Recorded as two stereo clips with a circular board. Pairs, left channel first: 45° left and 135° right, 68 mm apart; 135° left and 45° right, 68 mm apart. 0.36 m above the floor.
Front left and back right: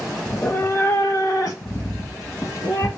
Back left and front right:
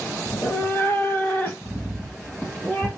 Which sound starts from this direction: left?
A cat meowing, at 0.3 s.